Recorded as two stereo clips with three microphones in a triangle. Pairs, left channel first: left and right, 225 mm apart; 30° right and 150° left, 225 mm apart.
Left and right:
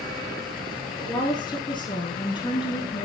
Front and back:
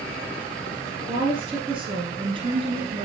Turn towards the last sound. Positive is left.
turn(degrees=125)